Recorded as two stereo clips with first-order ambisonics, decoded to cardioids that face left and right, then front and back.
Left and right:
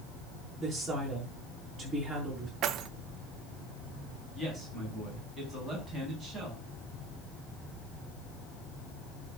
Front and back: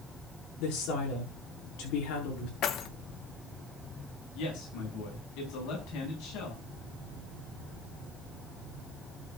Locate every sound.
0.6 s a woman speaking: 10° right, 6.5 m
2.6 s keys jangling: 45° right, 0.8 m
4.3 s a man speaking: 5° left, 5.5 m